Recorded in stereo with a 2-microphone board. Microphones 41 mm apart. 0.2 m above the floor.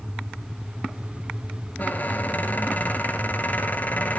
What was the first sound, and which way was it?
A squeak, 45° left (ahead or behind).